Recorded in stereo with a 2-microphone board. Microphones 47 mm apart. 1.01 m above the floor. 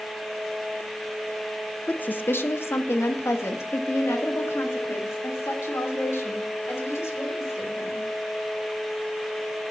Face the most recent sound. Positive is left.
turn(degrees=80)